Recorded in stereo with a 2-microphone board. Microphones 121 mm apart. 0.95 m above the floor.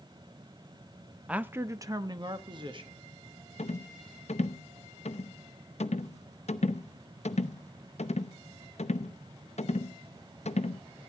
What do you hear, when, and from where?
1.3 s a man speaking: 10° right (ahead or behind), 0.6 m; by 3.0 s 45° right (ahead or behind), 1.7 m
3.6 s a rattle: 65° left (ahead or behind), 0.7 m